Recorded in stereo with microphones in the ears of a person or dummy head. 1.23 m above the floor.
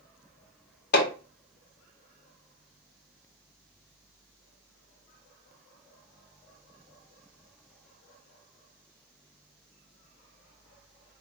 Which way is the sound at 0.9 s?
55° left (ahead or behind).